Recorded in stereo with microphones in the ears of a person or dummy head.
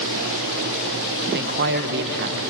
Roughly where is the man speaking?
Right.